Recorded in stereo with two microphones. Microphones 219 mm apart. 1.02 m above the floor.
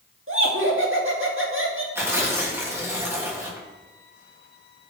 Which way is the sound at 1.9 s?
10° right (ahead or behind).